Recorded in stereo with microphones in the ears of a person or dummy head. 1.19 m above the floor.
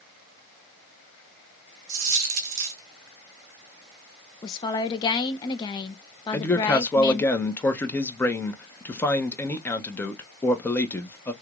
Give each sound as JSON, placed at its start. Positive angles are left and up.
{"t": 1.9, "sound": "a dropped coin", "side_deg": -40, "distance_m": 1.4}
{"t": 4.4, "sound": "a woman speaking", "side_deg": 25, "distance_m": 0.6}
{"t": 6.3, "sound": "a man speaking", "side_deg": 10, "distance_m": 0.7}